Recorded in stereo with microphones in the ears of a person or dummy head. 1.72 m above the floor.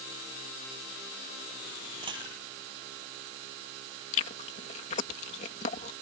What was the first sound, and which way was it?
A dropped coin, 25° right (ahead or behind).